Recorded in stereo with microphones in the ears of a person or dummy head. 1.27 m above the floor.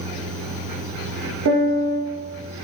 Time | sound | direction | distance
1.4 | a piano | 70° right (ahead or behind) | 0.5 m